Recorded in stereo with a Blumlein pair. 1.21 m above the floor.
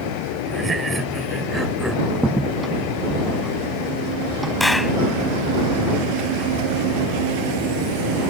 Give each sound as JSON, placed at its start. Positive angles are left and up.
{"t": 0.5, "sound": "laughter", "azimuth_deg": -15}
{"t": 2.1, "sound": "a crack", "azimuth_deg": -10}
{"t": 4.6, "sound": "a clap", "azimuth_deg": 5}